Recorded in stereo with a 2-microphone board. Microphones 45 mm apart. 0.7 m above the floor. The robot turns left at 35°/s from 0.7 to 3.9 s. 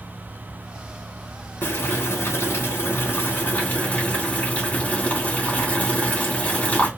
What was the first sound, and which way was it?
Boiling, 115° left.